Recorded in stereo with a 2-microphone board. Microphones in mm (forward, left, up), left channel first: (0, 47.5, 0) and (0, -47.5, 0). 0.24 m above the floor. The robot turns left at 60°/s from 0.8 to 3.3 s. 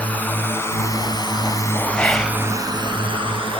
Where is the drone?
15° left (ahead or behind); by 3.6 s 65° right (ahead or behind).